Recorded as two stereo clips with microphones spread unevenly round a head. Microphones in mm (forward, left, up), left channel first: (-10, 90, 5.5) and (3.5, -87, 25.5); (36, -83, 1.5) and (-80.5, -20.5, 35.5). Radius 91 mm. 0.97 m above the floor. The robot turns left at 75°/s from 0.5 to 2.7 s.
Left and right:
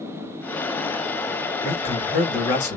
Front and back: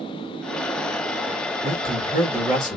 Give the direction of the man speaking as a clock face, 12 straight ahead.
8 o'clock.